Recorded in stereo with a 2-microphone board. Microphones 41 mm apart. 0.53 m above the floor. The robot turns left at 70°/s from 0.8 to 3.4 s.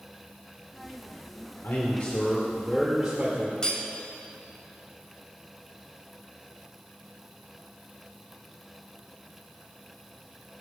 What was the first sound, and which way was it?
A man speaking, 85° left.